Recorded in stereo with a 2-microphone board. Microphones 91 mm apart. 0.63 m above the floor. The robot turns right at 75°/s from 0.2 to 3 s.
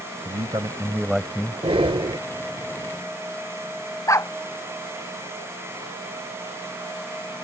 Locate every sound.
0.2 s a man speaking: 70° right; by 1.6 s 30° left
1.6 s breathing: 100° right; by 2.2 s 55° right
4.1 s a dog barking: 30° left (ahead or behind)